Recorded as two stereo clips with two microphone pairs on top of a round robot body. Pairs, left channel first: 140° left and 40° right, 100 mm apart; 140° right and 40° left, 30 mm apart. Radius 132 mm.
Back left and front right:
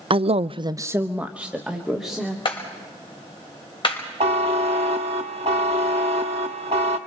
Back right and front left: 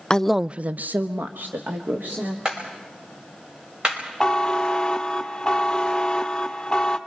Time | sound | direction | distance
0.1 | a man speaking | 75° right | 0.6 m
2.5 | a clap | 105° left | 5.5 m
4.2 | a buzzer | 65° right | 0.5 m